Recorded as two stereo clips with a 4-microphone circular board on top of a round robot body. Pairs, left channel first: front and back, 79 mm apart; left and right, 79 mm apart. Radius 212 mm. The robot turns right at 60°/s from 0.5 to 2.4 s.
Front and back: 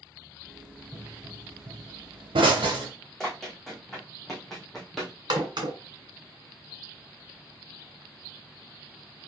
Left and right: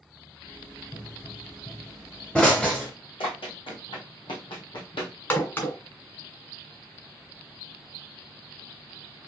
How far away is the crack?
About 2 m.